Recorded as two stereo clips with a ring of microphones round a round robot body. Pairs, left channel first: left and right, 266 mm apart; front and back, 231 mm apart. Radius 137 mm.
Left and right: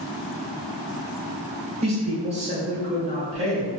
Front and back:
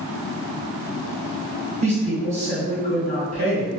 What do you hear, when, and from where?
1.8 s a woman speaking: 140° right, 1.4 m